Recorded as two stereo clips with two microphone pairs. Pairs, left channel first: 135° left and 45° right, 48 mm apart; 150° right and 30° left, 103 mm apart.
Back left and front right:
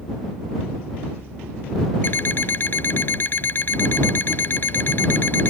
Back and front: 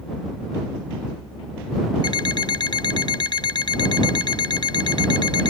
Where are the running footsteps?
No running footsteps in this recording.